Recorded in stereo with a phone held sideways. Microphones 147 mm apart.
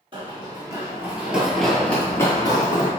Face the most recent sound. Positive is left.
turn(degrees=35)  # may be behind; listen again after turning